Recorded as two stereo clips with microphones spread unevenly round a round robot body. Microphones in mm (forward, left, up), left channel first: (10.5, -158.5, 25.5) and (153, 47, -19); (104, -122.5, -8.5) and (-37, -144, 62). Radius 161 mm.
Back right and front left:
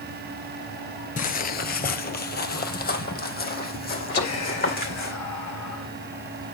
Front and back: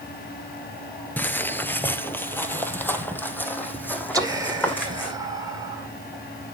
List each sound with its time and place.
1.2 s footsteps: 95° right, 0.8 m; by 5.1 s 75° right, 3 m
4.1 s whispering: 95° right, 2 m